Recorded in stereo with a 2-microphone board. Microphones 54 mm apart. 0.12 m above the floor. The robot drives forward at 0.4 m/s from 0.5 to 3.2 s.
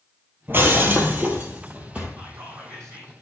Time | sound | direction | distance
0.5 | breaking glass | 40° right (ahead or behind) | 1.5 m
2.2 | whispering | 65° right (ahead or behind) | 4 m